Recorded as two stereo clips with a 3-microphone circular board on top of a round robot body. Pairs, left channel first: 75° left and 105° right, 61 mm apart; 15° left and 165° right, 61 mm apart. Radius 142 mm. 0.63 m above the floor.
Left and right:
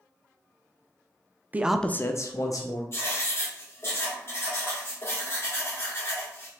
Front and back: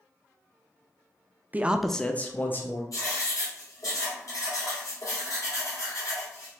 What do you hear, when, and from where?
1.5 s a man speaking: 135° right, 0.6 m; by 2.8 s 70° left, 1.3 m
2.9 s writing: 30° left, 2 m